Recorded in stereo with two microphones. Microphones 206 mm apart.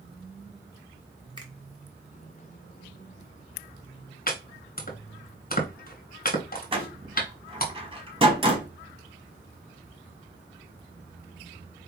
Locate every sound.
1.4 s a finger snap: 20° right (ahead or behind), 1.3 m
4.3 s chopping: 45° left (ahead or behind), 1.4 m
6.7 s a door slam: 25° right (ahead or behind), 1.1 m